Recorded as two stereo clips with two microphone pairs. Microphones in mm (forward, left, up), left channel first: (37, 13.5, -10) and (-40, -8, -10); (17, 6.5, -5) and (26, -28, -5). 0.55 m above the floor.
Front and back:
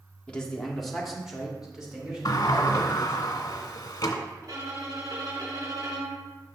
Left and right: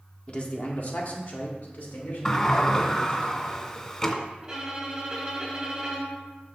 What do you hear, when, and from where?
0.3 s a man speaking: 80° left, 0.7 m; by 3.2 s 120° left, 3 m
2.2 s a sliding door: 35° left, 0.7 m
4.4 s a violin: 145° right, 2 m